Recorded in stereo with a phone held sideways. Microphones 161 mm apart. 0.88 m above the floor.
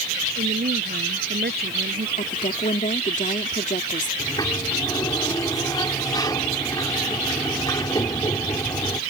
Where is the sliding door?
25° left (ahead or behind).